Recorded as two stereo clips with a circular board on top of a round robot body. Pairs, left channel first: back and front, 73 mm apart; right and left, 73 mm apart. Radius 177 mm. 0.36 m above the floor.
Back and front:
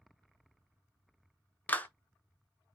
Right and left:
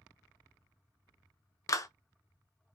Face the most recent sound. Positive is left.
turn(degrees=-115)